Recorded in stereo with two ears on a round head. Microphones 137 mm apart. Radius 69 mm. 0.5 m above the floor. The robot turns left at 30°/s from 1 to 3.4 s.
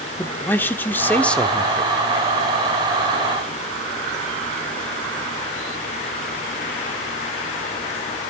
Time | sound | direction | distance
0.2 | a man speaking | 15° left (ahead or behind) | 1.2 m